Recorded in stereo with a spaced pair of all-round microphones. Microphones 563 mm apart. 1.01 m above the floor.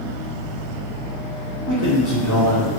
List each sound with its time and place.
0.0 s a fan: 5° left (ahead or behind), 0.8 m
1.7 s a man speaking: 35° left (ahead or behind), 0.8 m